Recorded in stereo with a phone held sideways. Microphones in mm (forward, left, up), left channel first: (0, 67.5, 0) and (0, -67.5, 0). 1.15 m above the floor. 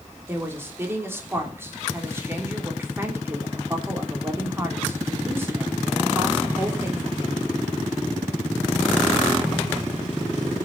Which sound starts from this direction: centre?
A woman speaking, at 0.3 s.